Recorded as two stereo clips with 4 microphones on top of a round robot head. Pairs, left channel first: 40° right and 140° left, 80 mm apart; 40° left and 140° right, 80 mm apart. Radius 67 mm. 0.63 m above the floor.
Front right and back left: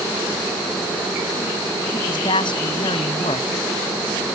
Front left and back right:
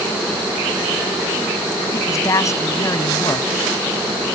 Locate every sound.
1.9 s a man speaking: 15° right